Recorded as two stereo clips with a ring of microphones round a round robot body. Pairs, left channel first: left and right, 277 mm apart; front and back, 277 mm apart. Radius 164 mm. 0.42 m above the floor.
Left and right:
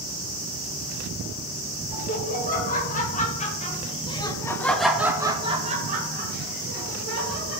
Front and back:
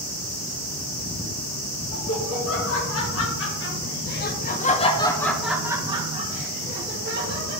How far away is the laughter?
About 2 m.